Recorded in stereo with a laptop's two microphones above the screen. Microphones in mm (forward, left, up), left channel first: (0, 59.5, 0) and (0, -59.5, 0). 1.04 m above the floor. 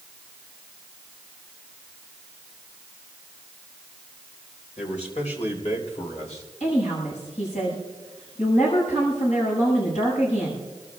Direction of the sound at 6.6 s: 80° left.